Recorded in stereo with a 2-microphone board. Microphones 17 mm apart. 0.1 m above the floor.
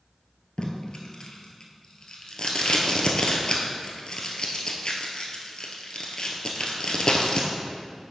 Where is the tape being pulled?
50° left (ahead or behind), 1.1 m.